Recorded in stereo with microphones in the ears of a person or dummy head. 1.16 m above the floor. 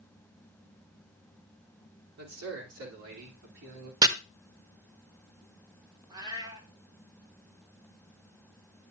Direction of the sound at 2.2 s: 85° right.